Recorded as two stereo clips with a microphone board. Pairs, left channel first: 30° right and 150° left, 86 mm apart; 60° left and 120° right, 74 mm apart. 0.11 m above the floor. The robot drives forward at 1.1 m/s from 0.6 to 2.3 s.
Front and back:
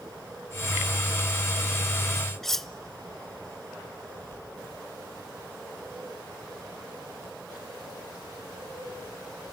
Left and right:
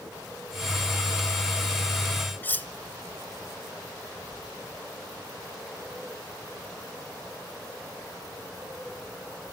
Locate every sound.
2.4 s cutlery clinking: 50° left, 0.7 m